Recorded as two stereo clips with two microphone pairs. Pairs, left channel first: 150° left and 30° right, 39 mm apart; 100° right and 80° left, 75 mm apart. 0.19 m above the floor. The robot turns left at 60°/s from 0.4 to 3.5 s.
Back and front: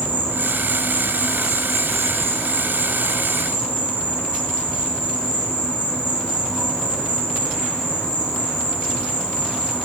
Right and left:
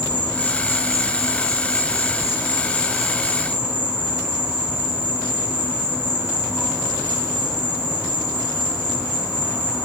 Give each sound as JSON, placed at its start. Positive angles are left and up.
{"t": 0.0, "sound": "an insect", "azimuth_deg": -35, "distance_m": 0.8}